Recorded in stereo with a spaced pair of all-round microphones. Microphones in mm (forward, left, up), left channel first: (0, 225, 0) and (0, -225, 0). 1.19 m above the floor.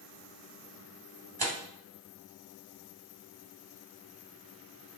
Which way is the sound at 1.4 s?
50° right (ahead or behind).